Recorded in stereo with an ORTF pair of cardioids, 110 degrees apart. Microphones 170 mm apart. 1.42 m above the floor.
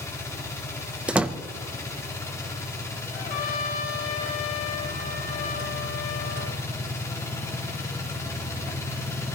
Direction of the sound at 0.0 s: 15° left.